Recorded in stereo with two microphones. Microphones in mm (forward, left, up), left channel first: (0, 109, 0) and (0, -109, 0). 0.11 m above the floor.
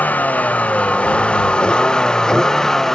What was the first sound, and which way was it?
A vehicle, 5° left (ahead or behind).